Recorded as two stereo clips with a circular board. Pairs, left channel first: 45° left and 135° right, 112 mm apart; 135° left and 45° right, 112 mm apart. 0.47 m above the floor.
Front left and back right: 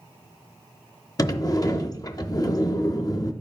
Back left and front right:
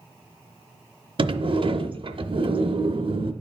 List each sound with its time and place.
1.2 s a sliding door: 10° right, 0.6 m